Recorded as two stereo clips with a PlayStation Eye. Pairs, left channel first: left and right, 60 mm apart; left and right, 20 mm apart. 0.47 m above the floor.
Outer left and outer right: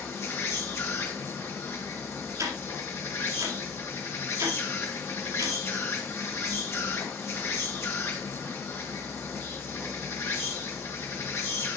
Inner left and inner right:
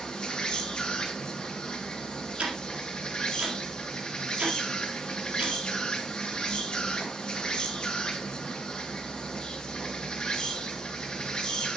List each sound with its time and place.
0.0 s an insect: 45° left (ahead or behind), 2 m
2.4 s ticking: 55° right (ahead or behind), 3.5 m